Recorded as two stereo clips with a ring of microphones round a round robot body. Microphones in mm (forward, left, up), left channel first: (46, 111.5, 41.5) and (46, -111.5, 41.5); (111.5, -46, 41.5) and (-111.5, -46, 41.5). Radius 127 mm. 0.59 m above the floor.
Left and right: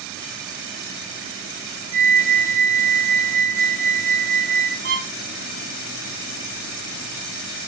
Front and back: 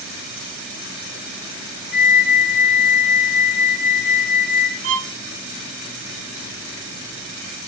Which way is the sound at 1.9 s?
35° left.